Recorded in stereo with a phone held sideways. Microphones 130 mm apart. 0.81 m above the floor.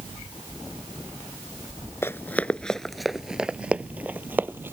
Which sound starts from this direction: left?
Running footsteps, at 2.0 s.